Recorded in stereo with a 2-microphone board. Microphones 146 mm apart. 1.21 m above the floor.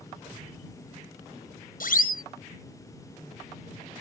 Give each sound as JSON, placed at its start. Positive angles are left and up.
{"t": 1.8, "sound": "a siren", "side_deg": 75}